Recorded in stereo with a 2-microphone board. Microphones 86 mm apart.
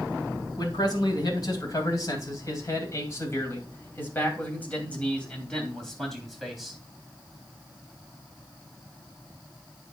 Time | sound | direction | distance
0.6 | a man speaking | 55° left (ahead or behind) | 3.5 m